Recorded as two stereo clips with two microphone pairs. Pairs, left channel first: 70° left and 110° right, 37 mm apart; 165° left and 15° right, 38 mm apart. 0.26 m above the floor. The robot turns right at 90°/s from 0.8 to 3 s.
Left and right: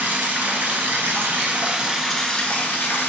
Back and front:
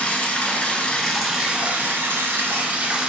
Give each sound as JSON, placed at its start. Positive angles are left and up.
{"t": 0.0, "sound": "running water", "azimuth_deg": -145, "distance_m": 0.7}